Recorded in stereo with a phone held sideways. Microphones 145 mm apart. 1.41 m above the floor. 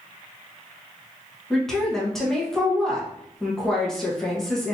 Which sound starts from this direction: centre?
A woman speaking, at 1.5 s.